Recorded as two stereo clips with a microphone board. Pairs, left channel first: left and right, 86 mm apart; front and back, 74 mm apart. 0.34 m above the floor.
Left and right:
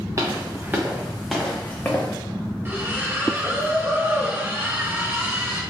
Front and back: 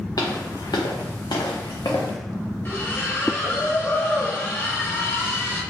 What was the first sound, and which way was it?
Footsteps, 35° right.